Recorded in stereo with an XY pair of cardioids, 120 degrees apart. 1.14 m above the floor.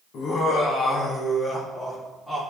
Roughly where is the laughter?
Ahead left.